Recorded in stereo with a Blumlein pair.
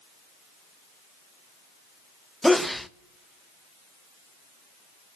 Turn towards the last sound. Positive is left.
turn(degrees=0)